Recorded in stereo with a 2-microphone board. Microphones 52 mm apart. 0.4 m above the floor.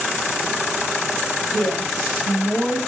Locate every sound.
1.5 s a woman speaking: centre (ahead or behind), 2.0 m